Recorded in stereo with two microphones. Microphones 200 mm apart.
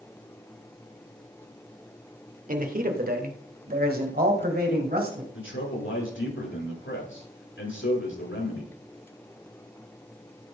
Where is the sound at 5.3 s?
80° left, 7 m.